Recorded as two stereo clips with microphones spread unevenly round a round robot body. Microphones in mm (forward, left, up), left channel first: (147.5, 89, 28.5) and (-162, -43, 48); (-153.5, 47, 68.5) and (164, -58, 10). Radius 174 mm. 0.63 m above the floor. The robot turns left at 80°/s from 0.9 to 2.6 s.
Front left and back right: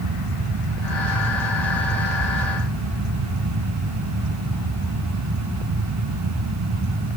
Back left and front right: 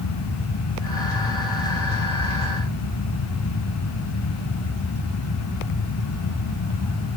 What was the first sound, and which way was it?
Only background noise.